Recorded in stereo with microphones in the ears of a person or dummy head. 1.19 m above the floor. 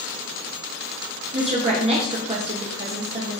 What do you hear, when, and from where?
1.3 s a woman speaking: 30° right (ahead or behind), 1.0 m